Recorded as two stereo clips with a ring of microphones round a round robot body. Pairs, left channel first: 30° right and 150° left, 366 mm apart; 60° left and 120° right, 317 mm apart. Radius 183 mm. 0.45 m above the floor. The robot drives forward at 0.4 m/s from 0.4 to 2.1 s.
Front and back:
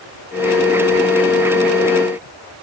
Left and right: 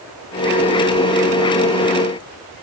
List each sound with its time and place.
Only background noise.